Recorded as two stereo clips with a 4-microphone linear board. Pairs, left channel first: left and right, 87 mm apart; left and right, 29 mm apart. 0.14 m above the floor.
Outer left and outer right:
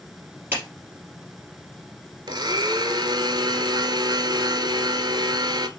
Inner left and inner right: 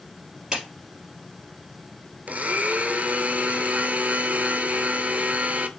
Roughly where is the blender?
Right.